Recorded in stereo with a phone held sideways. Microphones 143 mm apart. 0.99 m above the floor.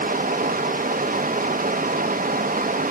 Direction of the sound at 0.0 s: 85° right.